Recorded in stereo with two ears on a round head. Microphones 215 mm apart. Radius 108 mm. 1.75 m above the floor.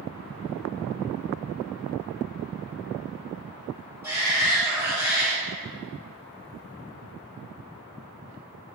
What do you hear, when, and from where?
4.0 s a shout: 10° right (ahead or behind), 2.5 m